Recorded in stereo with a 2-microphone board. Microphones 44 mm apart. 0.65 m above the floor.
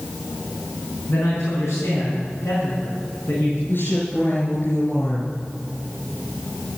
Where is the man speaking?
65° left (ahead or behind), 5.5 m.